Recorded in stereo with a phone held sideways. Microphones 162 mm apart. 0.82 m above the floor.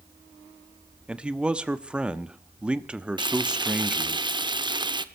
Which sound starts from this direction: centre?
A man speaking, at 1.1 s.